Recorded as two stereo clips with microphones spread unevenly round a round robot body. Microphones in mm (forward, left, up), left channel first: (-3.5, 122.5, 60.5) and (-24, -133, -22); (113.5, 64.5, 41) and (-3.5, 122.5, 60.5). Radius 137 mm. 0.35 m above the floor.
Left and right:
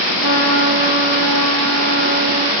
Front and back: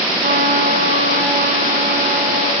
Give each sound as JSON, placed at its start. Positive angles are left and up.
{"t": 0.2, "sound": "a trumpet", "azimuth_deg": 130, "distance_m": 1.6}